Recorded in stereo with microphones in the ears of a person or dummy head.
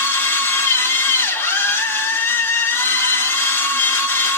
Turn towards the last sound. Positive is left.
turn(degrees=15)  # may be behind; listen again after turning